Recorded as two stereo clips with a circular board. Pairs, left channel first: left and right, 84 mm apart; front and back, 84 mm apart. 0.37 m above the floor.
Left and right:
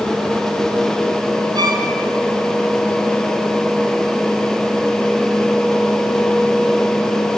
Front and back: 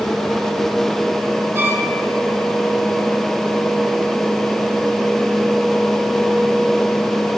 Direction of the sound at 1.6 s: 120° right.